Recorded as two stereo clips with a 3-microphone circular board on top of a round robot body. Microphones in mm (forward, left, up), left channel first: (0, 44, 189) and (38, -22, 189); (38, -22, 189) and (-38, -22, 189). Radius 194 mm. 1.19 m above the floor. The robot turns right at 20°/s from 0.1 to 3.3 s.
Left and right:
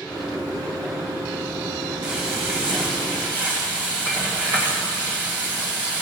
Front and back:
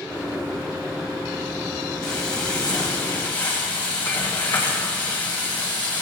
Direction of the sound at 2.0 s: 55° right.